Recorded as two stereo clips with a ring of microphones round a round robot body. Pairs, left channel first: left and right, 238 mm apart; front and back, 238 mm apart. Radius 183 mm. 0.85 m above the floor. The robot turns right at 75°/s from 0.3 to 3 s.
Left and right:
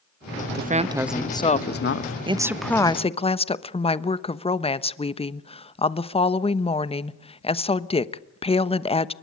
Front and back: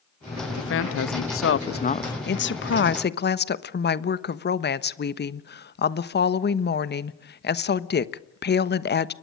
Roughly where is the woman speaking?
Ahead right.